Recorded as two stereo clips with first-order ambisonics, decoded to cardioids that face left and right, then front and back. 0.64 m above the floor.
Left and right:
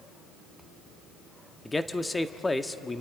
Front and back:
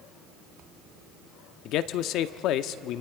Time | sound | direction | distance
1.6 | a man speaking | 10° left | 0.7 m